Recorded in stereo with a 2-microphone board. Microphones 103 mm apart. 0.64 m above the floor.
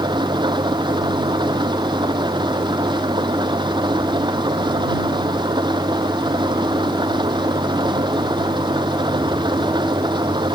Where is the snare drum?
No snare drum in this recording.